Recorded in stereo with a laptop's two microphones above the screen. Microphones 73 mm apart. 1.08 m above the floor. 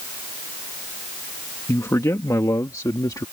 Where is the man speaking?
45° left (ahead or behind); by 3.2 s 60° left (ahead or behind).